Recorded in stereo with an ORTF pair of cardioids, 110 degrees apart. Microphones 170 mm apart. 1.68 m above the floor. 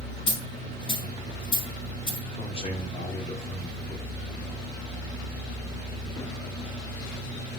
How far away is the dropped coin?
About 4.5 m.